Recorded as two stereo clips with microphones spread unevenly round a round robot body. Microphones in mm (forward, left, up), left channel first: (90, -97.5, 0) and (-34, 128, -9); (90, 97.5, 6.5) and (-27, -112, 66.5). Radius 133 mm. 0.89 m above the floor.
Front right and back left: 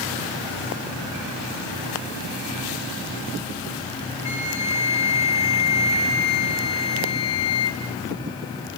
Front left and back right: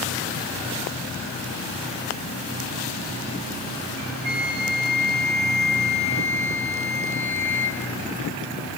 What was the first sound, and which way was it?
A flute, 130° right.